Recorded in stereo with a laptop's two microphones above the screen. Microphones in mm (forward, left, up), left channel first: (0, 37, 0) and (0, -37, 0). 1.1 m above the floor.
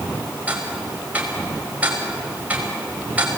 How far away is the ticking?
About 5 m.